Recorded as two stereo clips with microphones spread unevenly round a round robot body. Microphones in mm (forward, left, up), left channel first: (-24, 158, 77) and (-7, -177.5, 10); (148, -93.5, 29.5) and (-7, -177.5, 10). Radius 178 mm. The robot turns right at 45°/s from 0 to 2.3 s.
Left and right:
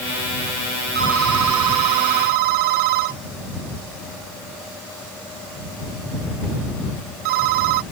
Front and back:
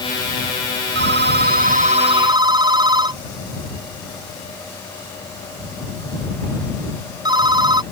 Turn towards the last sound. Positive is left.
turn(degrees=-85)